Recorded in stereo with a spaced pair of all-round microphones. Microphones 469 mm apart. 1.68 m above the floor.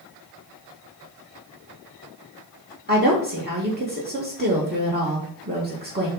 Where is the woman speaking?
20° right (ahead or behind), 1.7 m.